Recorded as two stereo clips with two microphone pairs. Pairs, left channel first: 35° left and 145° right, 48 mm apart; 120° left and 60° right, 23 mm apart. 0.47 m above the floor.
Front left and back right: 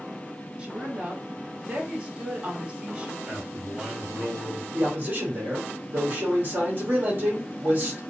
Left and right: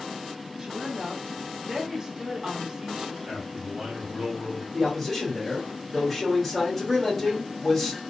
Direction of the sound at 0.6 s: 95° right.